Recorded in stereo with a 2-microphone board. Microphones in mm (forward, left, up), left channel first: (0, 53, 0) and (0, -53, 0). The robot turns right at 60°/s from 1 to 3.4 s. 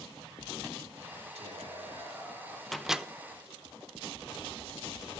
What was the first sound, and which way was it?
Whispering, 95° right.